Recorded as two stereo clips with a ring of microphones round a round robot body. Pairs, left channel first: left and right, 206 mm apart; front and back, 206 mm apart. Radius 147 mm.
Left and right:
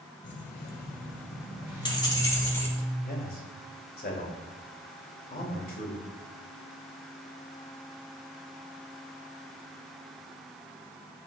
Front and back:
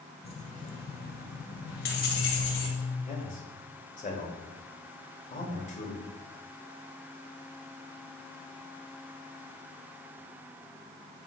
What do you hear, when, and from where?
0.2 s keys jangling: 65° left, 1.5 m; by 2.7 s 10° left, 2.5 m
1.7 s a zipper: 10° right, 3.5 m
3.0 s a man speaking: 50° left, 2.5 m